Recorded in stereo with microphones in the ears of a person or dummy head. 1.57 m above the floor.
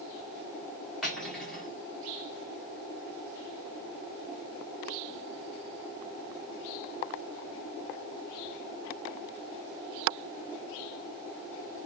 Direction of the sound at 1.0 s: 5° right (ahead or behind).